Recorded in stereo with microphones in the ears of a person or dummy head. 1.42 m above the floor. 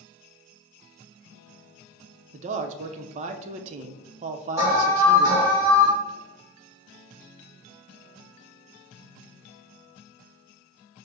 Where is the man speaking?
40° right (ahead or behind), 0.5 m.